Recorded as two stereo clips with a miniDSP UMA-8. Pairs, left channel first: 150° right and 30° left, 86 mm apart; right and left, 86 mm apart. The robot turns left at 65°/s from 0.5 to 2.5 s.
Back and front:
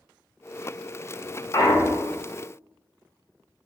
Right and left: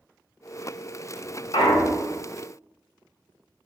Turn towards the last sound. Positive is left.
turn(degrees=-165)